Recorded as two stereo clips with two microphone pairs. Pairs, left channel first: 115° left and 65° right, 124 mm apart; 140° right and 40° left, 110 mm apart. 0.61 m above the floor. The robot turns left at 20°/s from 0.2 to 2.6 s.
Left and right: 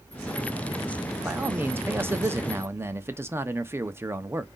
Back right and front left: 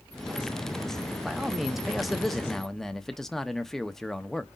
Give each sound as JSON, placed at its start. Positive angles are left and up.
{"t": 1.2, "sound": "a man speaking", "azimuth_deg": -25, "distance_m": 0.7}